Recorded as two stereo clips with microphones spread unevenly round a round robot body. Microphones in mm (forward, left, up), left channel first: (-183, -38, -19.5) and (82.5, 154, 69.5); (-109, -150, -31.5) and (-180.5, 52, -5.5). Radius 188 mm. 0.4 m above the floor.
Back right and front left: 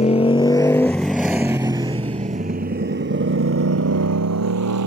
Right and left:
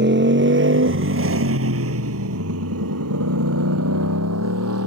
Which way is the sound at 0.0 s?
145° left.